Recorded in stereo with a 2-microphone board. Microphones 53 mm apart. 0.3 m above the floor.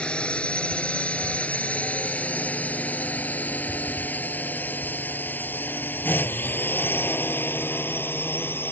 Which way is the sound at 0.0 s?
20° left (ahead or behind).